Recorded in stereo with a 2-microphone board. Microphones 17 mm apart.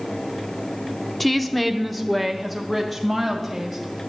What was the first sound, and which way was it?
A woman speaking, 10° left (ahead or behind).